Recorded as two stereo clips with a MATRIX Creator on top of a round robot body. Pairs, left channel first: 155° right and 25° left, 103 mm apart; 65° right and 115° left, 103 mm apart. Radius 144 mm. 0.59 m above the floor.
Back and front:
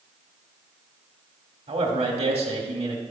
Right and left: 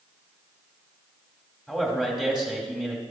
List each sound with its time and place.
1.7 s a man speaking: 25° left, 2.0 m